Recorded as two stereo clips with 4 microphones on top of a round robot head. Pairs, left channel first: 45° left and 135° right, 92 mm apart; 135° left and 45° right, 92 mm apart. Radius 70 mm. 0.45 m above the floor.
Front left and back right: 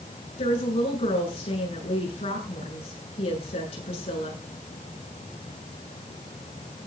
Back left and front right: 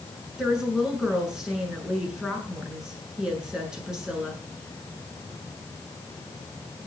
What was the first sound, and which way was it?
A woman speaking, 40° left.